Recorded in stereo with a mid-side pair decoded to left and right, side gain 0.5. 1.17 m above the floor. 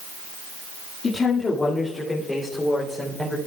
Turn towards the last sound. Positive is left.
turn(degrees=5)